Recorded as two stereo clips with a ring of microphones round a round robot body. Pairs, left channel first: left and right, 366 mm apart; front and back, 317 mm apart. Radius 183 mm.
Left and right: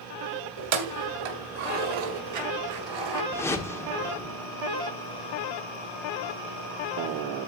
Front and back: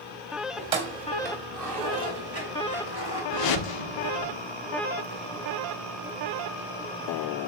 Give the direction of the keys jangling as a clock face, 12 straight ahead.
4 o'clock.